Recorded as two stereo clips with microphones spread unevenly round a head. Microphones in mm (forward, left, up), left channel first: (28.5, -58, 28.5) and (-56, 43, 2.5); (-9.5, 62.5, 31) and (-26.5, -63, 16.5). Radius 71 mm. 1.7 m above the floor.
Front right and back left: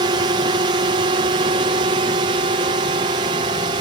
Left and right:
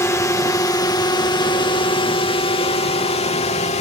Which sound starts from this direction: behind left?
A drone, at 0.0 s.